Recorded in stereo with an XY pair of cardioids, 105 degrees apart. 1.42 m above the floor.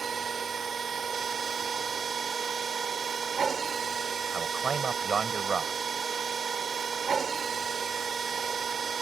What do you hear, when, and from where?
0.0 s a machine running: 40° right
4.3 s a man speaking: 40° right